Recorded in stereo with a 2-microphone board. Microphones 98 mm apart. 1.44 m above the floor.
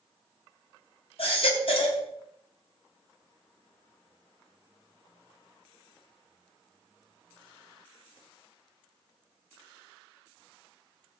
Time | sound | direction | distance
1.2 | a baby crying | 65° left (ahead or behind) | 3.5 m